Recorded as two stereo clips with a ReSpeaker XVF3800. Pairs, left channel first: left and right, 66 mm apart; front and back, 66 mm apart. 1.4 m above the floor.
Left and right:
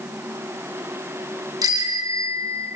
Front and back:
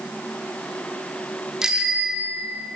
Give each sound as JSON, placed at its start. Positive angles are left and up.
{"t": 1.6, "sound": "a bicycle bell", "azimuth_deg": -100, "distance_m": 2.5}